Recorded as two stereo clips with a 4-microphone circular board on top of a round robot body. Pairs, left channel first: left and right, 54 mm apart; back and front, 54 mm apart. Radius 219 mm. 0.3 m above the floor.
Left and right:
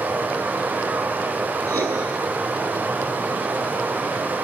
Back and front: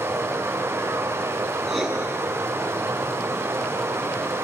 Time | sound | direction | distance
0.0 | running water | 35° right | 2 m
1.7 | writing | 90° right | 7 m